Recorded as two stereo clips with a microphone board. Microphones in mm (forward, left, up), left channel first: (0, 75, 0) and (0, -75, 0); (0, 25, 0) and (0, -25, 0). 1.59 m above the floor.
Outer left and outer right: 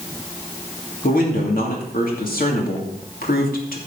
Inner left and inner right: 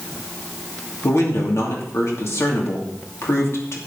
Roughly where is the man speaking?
Left.